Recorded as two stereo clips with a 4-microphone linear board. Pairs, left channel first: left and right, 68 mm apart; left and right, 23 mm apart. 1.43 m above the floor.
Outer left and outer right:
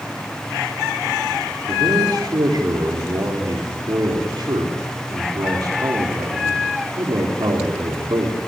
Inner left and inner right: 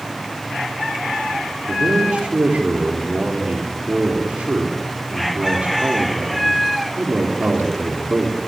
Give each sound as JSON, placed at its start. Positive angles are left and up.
{"t": 1.7, "sound": "a man speaking", "side_deg": -85, "distance_m": 4.0}